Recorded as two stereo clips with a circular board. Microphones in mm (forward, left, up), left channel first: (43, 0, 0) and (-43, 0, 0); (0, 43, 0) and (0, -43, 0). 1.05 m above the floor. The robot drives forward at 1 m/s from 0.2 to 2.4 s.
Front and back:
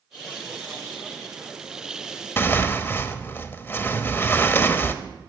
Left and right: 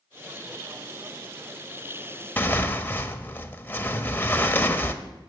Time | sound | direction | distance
2.4 | tearing paper | 40° left | 0.9 m